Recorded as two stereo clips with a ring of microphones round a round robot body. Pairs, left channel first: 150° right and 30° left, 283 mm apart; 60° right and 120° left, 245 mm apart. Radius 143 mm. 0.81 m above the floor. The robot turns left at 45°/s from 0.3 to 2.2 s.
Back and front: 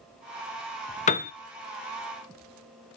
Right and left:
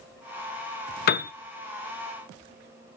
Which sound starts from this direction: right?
A piano, at 1.1 s.